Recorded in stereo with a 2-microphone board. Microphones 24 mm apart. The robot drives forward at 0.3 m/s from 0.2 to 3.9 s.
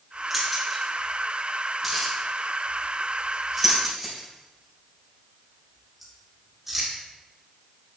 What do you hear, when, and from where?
0.3 s keys jangling: centre (ahead or behind), 3.5 m